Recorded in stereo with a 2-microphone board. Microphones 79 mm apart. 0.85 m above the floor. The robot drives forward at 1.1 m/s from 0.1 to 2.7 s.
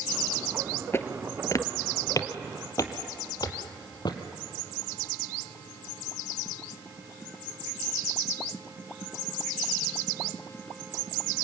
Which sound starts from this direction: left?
Footsteps, at 0.9 s.